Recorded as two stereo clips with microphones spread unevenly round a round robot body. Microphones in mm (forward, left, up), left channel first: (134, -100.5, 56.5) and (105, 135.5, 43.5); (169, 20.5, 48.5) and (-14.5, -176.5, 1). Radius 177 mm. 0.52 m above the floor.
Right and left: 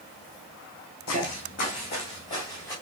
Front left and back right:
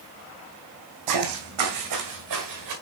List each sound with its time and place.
1.1 s footsteps: 135° right, 1.5 m; by 2.7 s 165° right, 3 m